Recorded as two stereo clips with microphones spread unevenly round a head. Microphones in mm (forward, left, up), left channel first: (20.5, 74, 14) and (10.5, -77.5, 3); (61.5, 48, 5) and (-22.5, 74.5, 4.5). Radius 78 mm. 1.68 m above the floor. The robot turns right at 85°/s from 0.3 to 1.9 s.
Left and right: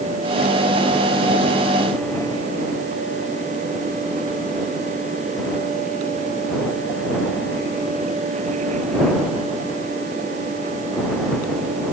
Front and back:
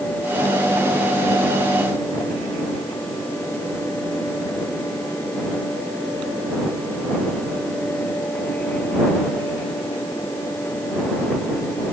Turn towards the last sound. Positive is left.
No sound to turn to.